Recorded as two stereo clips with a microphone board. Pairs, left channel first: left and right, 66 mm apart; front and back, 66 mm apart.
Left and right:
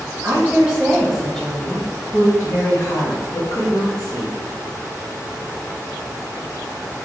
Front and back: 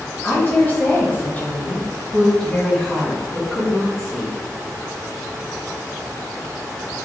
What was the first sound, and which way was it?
A woman speaking, 45° right.